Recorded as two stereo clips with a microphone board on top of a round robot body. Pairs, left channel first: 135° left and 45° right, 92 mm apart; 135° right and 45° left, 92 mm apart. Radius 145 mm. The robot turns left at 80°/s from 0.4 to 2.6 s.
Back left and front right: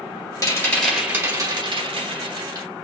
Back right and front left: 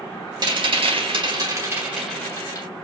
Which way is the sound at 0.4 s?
85° left.